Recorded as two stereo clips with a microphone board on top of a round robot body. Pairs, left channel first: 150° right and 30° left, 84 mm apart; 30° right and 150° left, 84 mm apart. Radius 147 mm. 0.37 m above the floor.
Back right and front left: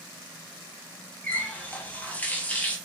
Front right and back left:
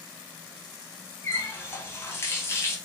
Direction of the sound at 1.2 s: 80° right.